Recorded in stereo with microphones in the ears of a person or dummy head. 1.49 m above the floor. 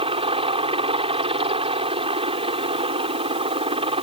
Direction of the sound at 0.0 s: 35° right (ahead or behind).